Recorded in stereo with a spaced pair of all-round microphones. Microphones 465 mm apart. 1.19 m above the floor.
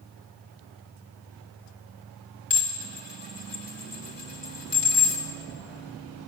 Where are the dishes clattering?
60° left (ahead or behind), 1.8 m.